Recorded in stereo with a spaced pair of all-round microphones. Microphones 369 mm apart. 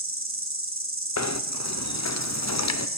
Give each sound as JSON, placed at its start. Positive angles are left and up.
{"t": 0.0, "sound": "an insect", "side_deg": -35, "distance_m": 1.5}
{"t": 1.2, "sound": "knocking", "side_deg": 45, "distance_m": 0.6}